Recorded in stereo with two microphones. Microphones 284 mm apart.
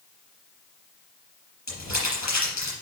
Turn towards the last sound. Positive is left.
turn(degrees=80)